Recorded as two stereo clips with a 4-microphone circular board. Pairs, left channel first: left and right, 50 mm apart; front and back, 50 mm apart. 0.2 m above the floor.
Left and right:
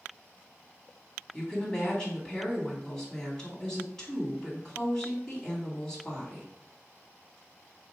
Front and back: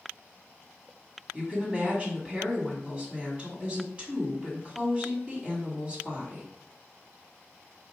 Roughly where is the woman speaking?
Behind left.